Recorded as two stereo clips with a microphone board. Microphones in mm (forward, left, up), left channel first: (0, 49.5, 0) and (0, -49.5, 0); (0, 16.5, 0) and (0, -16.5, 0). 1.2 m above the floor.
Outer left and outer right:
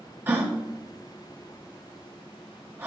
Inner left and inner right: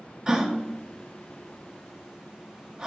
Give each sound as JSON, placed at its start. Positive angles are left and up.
{"t": 0.3, "sound": "a gasp", "side_deg": -20, "distance_m": 1.0}